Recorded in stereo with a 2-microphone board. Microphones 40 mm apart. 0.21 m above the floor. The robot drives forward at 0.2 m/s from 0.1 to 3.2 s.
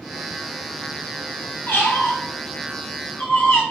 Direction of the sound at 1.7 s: 50° left (ahead or behind).